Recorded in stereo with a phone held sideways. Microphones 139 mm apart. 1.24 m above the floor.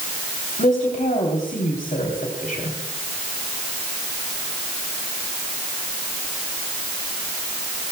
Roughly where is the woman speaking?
Left.